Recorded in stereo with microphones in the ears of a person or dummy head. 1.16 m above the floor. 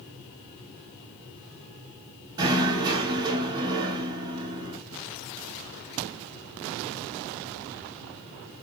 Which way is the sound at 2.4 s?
20° right (ahead or behind).